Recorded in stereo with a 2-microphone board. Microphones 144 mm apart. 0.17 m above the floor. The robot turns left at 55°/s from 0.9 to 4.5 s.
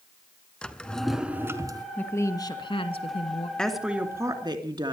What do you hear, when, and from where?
0.6 s a drawer: 10° left, 1.2 m; by 1.9 s 45° right, 1.2 m
2.0 s a woman speaking: 165° left, 2 m; by 3.5 s 80° left, 2 m
3.6 s a woman speaking: 5° left, 2.5 m; by 4.9 s 45° right, 2.5 m